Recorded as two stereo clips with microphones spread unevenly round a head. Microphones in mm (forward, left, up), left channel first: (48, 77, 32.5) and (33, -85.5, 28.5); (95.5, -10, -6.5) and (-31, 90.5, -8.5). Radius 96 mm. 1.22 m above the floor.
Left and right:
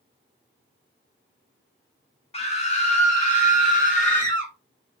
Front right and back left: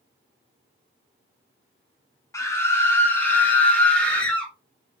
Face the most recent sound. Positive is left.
turn(degrees=45)